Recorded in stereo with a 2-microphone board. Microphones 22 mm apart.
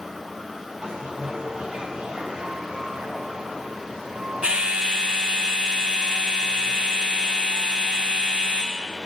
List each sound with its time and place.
0.8 s a bell: 50° right (ahead or behind), 0.8 m